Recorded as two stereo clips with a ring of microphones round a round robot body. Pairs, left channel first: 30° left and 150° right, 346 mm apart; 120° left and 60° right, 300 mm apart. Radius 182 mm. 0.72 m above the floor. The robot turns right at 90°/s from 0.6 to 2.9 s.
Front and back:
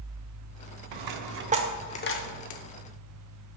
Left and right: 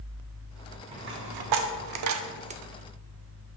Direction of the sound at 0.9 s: 135° right.